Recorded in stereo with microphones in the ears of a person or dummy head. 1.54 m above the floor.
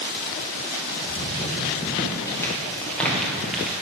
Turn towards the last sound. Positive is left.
turn(degrees=-5)  # may be behind; listen again after turning